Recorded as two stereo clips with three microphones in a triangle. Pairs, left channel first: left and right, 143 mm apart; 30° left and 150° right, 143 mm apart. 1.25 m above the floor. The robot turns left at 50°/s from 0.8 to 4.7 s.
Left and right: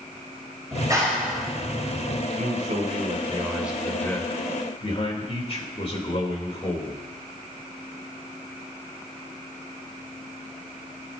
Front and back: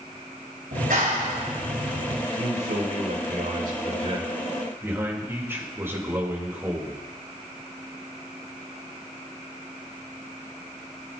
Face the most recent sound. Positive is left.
turn(degrees=135)